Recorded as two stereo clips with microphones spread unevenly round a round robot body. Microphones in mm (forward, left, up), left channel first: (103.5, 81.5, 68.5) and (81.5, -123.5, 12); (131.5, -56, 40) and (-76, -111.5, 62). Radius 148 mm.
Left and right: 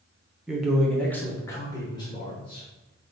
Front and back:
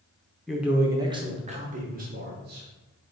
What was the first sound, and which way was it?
A man speaking, 60° right.